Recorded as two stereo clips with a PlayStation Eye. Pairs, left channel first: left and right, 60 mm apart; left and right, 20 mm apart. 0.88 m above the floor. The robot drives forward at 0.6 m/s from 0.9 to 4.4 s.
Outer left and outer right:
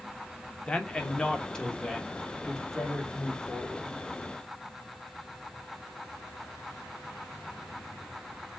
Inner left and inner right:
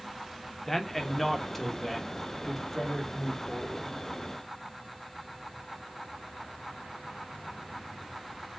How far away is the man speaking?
About 0.9 m.